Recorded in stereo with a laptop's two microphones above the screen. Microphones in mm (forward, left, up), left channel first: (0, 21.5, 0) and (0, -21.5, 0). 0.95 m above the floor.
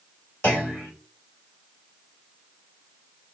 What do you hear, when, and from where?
0.4 s a clunk: 40° left (ahead or behind), 3.5 m